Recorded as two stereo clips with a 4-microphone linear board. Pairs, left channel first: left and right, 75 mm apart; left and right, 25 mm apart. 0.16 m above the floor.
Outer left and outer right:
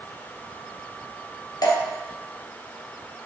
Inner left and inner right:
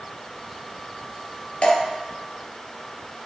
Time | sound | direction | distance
1.6 | dripping | 60° left (ahead or behind) | 1.7 m